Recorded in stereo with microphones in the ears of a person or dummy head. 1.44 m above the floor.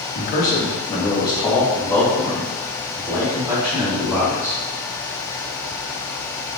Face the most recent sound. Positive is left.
turn(degrees=-20)  # may be behind; listen again after turning